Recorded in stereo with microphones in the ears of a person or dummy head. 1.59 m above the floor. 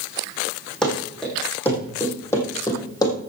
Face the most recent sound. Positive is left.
turn(degrees=30)  # may be behind; listen again after turning